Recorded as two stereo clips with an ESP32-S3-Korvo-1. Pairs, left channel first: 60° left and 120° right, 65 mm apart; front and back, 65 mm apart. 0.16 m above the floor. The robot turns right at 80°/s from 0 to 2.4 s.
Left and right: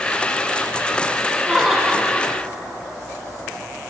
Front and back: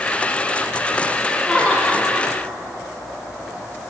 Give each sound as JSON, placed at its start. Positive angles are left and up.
{"t": 1.4, "sound": "laughter", "azimuth_deg": -55, "distance_m": 1.3}